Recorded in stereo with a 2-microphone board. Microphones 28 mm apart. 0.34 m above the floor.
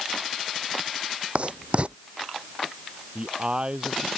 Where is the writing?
45° right (ahead or behind).